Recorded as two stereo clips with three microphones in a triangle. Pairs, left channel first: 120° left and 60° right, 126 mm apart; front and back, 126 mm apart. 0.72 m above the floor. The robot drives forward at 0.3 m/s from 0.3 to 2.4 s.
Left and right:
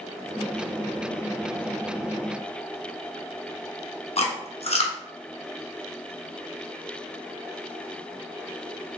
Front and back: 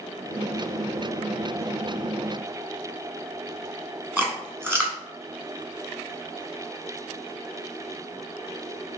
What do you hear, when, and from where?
4.2 s chewing: 110° left, 0.8 m